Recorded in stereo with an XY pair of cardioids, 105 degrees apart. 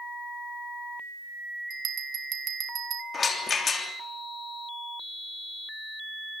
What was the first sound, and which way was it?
A bell, 60° right.